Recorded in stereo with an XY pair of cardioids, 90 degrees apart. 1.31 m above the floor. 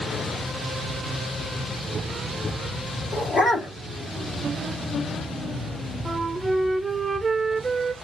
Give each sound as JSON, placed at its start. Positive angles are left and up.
{"t": 3.1, "sound": "a dog barking", "azimuth_deg": 50, "distance_m": 3.0}
{"t": 6.0, "sound": "a flute", "azimuth_deg": -25, "distance_m": 1.0}